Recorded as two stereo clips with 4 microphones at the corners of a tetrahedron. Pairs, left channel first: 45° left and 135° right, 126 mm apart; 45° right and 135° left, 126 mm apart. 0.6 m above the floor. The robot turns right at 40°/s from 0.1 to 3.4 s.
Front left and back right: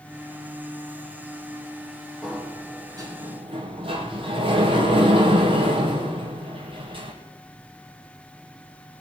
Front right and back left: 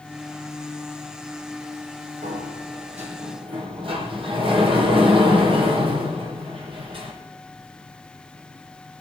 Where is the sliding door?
130° left, 3.5 m; by 7.1 s straight behind, 3.5 m.